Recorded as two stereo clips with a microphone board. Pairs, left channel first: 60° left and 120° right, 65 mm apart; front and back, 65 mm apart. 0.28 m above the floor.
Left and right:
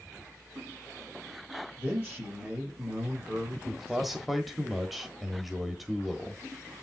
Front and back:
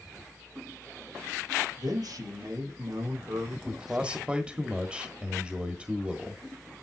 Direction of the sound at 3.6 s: 155° left.